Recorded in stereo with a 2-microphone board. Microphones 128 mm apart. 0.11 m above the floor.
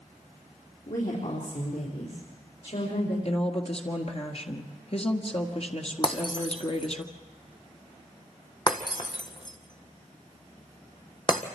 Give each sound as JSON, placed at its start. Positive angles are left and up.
{"t": 0.9, "sound": "a woman speaking", "side_deg": 70, "distance_m": 4.0}
{"t": 3.2, "sound": "a woman speaking", "side_deg": 50, "distance_m": 1.6}
{"t": 6.0, "sound": "breaking glass", "side_deg": 35, "distance_m": 1.4}